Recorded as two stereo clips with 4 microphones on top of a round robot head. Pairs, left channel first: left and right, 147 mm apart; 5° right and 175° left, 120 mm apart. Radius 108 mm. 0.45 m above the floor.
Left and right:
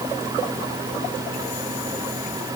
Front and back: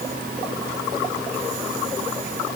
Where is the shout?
I don't hear a shout.